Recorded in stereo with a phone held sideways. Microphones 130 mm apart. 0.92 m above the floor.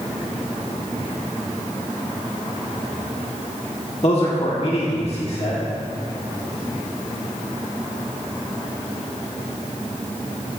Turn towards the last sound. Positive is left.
turn(degrees=50)  # may be behind; listen again after turning